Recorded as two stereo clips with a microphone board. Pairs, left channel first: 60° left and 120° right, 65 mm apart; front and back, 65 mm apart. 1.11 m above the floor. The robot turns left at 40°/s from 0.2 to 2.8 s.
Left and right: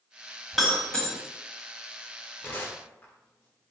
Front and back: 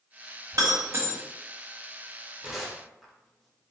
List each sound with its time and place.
0.5 s breaking glass: 150° left, 1.2 m; by 1.2 s 125° left, 1.2 m
2.4 s tearing paper: 105° left, 0.8 m; by 3.6 s 90° left, 0.8 m